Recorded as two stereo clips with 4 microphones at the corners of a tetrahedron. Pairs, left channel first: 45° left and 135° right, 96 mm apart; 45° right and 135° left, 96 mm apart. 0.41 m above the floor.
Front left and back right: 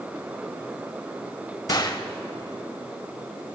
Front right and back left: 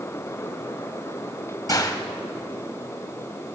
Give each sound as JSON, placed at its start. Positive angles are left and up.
{"t": 1.7, "sound": "a gunshot", "azimuth_deg": 0, "distance_m": 0.9}